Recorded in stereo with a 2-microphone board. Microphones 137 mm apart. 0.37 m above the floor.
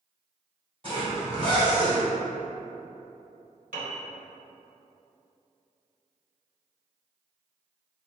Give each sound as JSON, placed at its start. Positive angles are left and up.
{"t": 0.8, "sound": "a zipper", "side_deg": -45, "distance_m": 1.9}
{"t": 3.7, "sound": "a piano", "side_deg": -80, "distance_m": 1.3}